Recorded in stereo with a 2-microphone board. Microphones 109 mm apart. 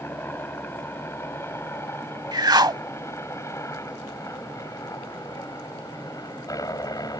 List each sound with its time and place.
0.0 s a helicopter: 20° left (ahead or behind); by 7.2 s 35° left (ahead or behind)
2.3 s a whoosh: 40° right (ahead or behind)